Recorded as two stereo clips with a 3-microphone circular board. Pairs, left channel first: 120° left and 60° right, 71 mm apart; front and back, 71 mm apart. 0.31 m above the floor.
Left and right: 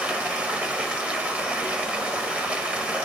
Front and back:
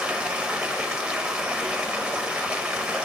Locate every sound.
0.0 s running water: 115° right, 0.9 m